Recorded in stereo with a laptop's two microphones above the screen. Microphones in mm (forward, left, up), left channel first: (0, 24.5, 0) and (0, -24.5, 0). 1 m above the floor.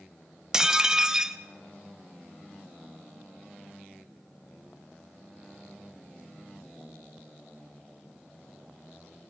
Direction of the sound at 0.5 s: 15° right (ahead or behind).